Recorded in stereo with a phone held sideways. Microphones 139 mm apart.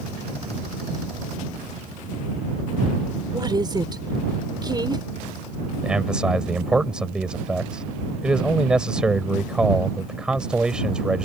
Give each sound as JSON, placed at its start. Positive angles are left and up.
{"t": 3.3, "sound": "a woman speaking", "side_deg": -30}
{"t": 5.8, "sound": "a man speaking", "side_deg": -5}